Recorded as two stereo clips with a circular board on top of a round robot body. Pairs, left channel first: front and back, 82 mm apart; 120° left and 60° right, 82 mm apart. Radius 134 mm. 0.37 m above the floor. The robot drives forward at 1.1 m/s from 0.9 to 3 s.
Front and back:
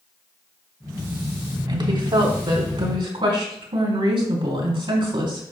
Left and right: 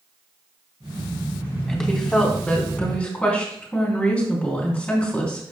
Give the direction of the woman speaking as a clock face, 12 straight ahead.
5 o'clock.